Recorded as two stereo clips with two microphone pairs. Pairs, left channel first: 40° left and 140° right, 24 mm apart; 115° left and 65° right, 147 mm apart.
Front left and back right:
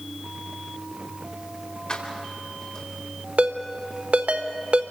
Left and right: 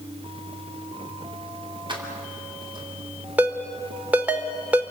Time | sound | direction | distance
1.9 | keys jangling | 10° right | 3.5 m
3.4 | a ringtone | 145° right | 1.4 m